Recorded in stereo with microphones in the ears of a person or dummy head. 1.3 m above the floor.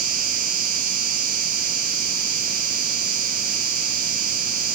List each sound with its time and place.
0.0 s an insect: 45° right (ahead or behind), 0.9 m